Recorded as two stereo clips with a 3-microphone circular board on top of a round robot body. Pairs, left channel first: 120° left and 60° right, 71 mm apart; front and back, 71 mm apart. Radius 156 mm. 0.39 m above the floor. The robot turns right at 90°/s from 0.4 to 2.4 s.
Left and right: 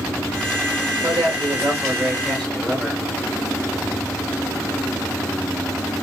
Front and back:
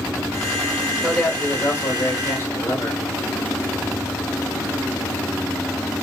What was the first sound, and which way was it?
A man speaking, 90° right.